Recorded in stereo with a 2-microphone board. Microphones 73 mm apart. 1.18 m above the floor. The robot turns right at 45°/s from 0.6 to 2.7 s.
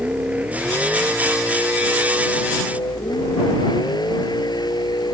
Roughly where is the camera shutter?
No camera shutter in this recording.